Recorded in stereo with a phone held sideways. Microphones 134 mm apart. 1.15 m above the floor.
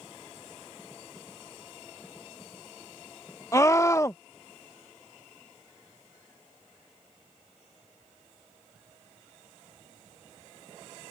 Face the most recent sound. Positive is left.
turn(degrees=20)  # may be behind; listen again after turning